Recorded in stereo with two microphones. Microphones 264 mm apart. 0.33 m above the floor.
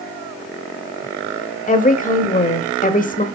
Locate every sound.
1.7 s a woman speaking: 30° left (ahead or behind), 1.2 m